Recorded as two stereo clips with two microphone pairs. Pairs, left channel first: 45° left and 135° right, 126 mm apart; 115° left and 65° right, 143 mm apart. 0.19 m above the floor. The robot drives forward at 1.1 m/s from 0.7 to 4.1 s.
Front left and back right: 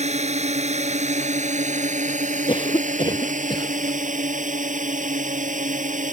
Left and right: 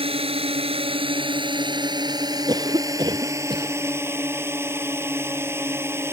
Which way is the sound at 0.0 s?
115° right.